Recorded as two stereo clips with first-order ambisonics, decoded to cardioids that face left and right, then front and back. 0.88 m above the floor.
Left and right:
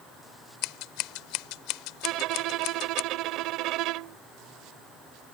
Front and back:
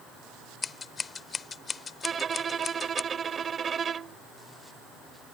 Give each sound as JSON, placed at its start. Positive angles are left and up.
{"t": 0.6, "sound": "scissors", "azimuth_deg": 70}
{"t": 2.0, "sound": "a violin", "azimuth_deg": -115}